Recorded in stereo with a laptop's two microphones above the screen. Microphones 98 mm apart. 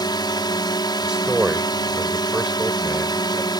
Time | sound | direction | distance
0.0 | a drone | 45° left (ahead or behind) | ?
1.0 | a man speaking | 10° right (ahead or behind) | ?